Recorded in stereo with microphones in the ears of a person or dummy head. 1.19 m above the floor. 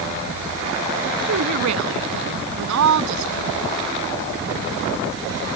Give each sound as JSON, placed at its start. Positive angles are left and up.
{"t": 1.3, "sound": "a woman speaking", "side_deg": -75}